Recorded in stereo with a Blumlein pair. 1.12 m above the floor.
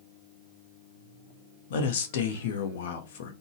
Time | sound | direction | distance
1.7 | a man speaking | 55° left | 0.7 m